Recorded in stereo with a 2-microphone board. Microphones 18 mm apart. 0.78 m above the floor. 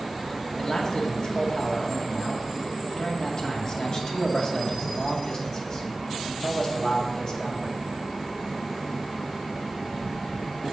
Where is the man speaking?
45° left (ahead or behind), 2 m.